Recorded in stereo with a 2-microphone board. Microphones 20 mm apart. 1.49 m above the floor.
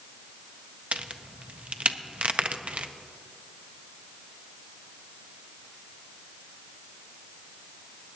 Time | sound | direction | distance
0.9 | a crack | 70° right (ahead or behind) | 0.5 m